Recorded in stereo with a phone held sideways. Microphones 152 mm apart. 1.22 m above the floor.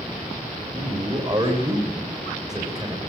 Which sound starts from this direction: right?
A man speaking, at 0.7 s.